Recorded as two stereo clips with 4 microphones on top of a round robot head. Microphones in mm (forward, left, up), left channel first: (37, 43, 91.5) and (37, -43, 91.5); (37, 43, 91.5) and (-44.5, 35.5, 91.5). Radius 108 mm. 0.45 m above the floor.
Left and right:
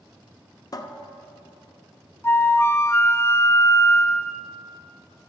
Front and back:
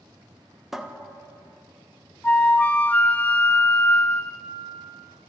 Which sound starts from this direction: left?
A cupboard door, at 0.7 s.